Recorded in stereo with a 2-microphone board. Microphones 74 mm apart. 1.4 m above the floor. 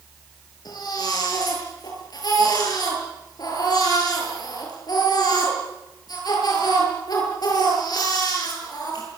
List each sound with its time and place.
0.7 s a baby crying: 65° left (ahead or behind), 9 m